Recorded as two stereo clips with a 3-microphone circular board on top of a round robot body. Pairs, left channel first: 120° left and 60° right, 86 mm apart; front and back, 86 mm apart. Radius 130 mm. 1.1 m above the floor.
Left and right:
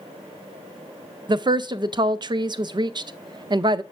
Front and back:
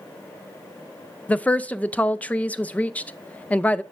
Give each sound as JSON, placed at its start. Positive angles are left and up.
{"t": 1.3, "sound": "a woman speaking", "azimuth_deg": -70, "distance_m": 0.5}